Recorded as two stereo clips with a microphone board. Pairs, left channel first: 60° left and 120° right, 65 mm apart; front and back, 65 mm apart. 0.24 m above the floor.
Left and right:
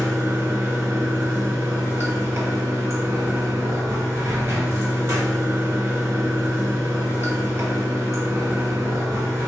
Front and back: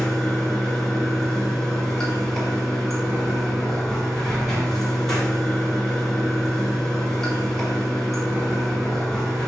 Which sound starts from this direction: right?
Running water, at 0.0 s.